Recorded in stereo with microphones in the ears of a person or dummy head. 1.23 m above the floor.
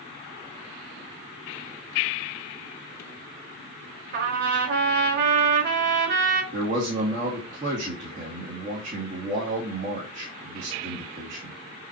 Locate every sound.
4.1 s a trumpet: 50° right (ahead or behind), 1.4 m
6.5 s a man speaking: 35° right (ahead or behind), 2 m